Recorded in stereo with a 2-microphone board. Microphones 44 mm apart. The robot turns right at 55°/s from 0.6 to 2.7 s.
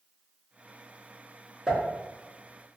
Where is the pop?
15° right (ahead or behind), 0.8 m; by 2.8 s 45° right (ahead or behind), 0.8 m.